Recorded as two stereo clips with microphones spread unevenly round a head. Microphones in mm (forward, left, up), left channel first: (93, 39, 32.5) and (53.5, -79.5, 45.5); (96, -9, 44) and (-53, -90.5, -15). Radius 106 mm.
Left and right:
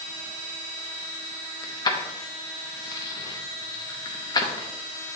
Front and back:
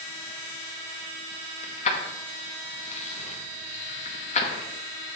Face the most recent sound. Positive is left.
turn(degrees=15)